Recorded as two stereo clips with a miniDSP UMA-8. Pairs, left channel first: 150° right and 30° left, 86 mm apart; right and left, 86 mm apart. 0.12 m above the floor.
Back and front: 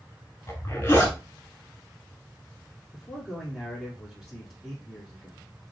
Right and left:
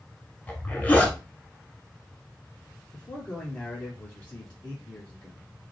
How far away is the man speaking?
About 1.2 m.